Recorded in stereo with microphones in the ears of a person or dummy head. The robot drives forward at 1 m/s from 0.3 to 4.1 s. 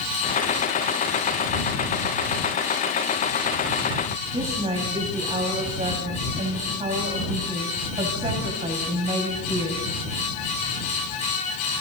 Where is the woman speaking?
30° right (ahead or behind), 5.5 m.